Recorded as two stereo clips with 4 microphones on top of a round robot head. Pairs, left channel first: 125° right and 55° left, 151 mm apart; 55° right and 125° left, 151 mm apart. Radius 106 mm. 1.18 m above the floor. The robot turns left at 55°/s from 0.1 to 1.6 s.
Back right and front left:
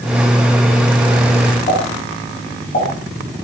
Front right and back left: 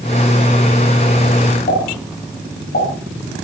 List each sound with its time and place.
1.7 s a pop: 85° right, 8.5 m